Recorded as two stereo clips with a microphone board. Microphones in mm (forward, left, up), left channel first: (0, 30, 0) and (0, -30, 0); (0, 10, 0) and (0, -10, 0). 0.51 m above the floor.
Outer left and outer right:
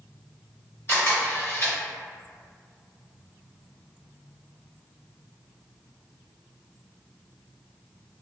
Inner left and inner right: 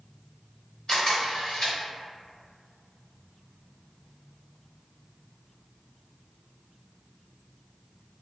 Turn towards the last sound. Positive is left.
turn(degrees=45)  # may be behind; listen again after turning